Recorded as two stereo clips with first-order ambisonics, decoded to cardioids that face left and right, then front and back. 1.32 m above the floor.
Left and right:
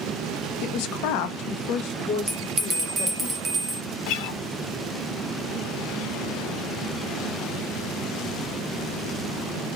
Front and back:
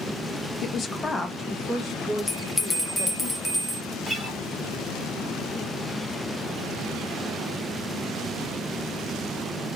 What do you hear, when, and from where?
0.6 s a woman speaking: 55° left, 0.5 m; by 3.3 s 120° left, 1.5 m
2.3 s a bell: 80° right, 0.9 m
4.1 s a guitar: 100° left, 0.6 m